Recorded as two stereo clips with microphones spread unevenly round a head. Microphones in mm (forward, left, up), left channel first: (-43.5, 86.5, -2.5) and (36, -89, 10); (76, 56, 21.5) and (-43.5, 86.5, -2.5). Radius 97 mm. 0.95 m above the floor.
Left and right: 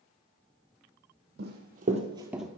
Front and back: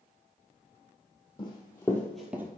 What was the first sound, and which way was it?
Running footsteps, 55° right.